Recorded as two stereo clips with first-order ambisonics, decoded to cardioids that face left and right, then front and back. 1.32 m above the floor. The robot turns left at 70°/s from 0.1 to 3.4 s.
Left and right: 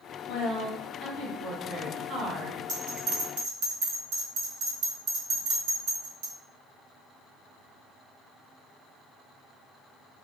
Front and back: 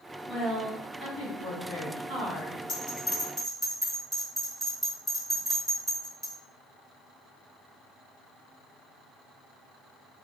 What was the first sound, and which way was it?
A woman speaking, 85° left.